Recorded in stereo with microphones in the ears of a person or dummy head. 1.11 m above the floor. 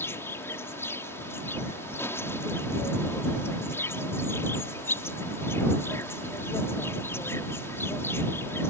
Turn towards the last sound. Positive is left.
turn(degrees=10)  # may be behind; listen again after turning